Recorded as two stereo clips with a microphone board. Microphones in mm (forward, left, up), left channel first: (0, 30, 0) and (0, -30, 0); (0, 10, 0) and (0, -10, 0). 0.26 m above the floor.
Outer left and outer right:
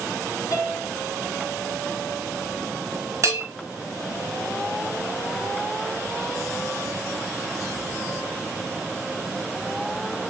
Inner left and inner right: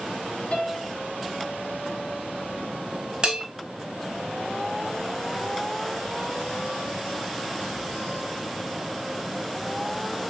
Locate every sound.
0.5 s a piano: 60° left (ahead or behind), 0.7 m
3.2 s a bell: 55° right (ahead or behind), 0.7 m